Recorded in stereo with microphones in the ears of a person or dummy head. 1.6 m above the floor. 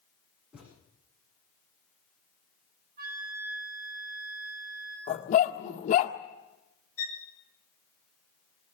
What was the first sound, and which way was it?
A thud, 5° right (ahead or behind).